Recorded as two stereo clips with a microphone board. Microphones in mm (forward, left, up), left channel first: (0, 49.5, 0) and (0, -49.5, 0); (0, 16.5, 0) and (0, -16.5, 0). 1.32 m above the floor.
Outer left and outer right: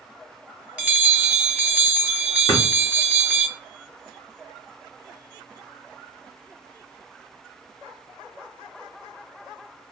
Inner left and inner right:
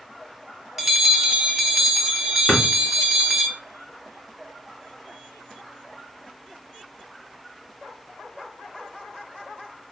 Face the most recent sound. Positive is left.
turn(degrees=45)  # may be behind; listen again after turning